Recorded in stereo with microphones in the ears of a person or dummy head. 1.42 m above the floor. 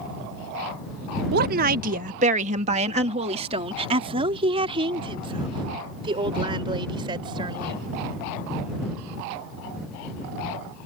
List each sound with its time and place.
1.3 s a woman speaking: 55° right (ahead or behind); by 7.8 s 25° right (ahead or behind)